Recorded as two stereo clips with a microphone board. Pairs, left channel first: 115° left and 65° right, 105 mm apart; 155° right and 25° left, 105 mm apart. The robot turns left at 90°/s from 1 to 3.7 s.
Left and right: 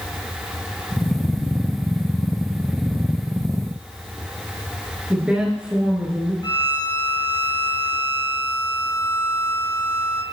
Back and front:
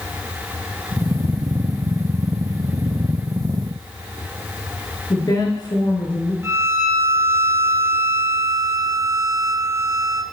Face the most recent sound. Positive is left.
turn(degrees=80)